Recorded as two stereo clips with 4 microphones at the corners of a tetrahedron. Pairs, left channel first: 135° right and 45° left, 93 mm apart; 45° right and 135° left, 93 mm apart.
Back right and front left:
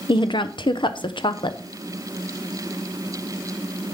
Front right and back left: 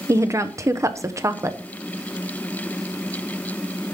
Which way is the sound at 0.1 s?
170° right.